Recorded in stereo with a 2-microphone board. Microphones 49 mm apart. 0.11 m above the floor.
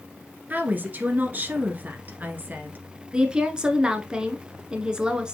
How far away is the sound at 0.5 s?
About 1.4 m.